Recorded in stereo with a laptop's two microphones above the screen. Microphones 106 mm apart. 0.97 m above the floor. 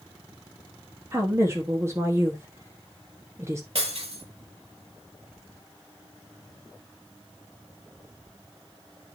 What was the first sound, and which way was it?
A woman speaking, 25° right (ahead or behind).